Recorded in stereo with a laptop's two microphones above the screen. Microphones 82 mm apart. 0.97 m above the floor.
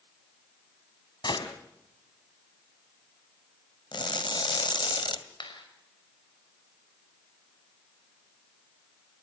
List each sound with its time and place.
1.2 s a gunshot: 65° left (ahead or behind), 3 m
3.9 s crushing: 70° left (ahead or behind), 2.0 m
5.4 s a clap: 75° left (ahead or behind), 4.5 m